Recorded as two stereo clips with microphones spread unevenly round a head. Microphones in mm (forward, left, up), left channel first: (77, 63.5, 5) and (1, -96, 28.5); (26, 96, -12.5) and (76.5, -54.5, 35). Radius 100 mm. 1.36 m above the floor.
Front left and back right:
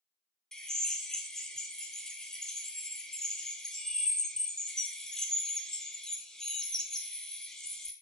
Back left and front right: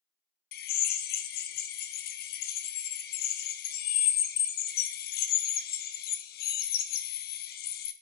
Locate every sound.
0.5 s a drill: 150° left, 0.5 m